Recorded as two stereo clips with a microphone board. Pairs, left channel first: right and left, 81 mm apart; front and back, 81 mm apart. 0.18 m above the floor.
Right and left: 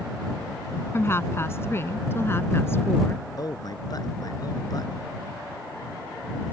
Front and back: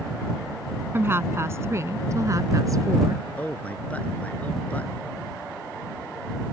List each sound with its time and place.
0.9 s a woman speaking: 135° right; by 3.2 s 145° right
3.4 s a man speaking: 70° right